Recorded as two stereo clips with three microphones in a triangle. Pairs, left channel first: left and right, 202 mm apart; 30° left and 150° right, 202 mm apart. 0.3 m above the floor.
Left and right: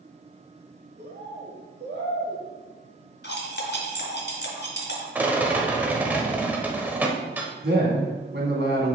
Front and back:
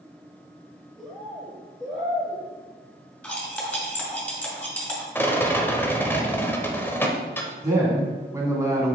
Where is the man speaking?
75° right, 2 m.